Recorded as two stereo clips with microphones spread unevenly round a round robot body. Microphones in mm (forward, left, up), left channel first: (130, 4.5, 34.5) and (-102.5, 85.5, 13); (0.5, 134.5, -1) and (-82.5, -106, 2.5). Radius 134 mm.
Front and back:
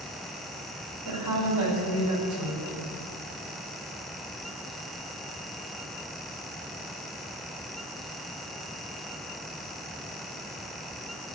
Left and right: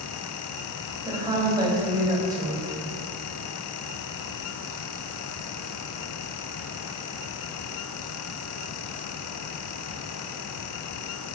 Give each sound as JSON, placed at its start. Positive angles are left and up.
{"t": 1.1, "sound": "a woman speaking", "azimuth_deg": 175, "distance_m": 6.0}